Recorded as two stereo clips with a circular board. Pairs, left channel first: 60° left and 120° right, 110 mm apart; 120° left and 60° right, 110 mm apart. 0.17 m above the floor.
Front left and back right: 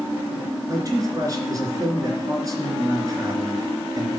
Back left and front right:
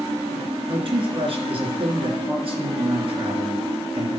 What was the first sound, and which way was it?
A man speaking, 70° right.